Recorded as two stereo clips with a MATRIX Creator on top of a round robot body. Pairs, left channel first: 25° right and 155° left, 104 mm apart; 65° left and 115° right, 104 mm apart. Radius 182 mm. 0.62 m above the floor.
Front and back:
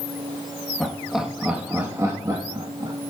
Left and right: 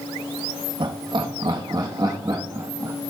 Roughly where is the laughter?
Right.